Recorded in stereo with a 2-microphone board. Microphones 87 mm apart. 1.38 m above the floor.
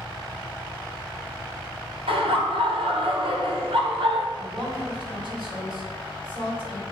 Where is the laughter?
75° right (ahead or behind), 1.2 m.